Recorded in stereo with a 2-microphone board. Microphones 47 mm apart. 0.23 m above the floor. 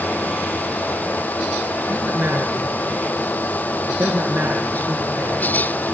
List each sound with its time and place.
1.9 s a man speaking: 45° right (ahead or behind), 3.5 m